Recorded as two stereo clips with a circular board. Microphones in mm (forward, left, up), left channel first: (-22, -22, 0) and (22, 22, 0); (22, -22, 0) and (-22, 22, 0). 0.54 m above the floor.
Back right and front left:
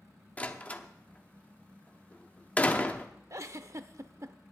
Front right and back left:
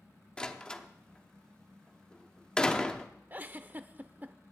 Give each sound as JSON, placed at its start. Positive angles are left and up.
{"t": 0.4, "sound": "a door slam", "azimuth_deg": -105, "distance_m": 0.8}
{"t": 3.3, "sound": "a giggle", "azimuth_deg": 80, "distance_m": 0.6}